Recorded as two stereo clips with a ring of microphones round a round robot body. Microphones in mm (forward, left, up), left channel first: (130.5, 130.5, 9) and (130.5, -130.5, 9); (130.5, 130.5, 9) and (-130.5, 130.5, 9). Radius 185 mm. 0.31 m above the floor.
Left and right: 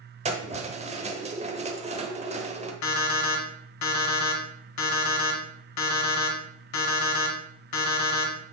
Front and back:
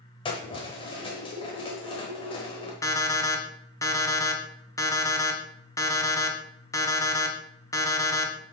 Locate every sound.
0.2 s keys jangling: 55° right, 1.0 m
2.8 s an alarm clock: 80° left, 1.3 m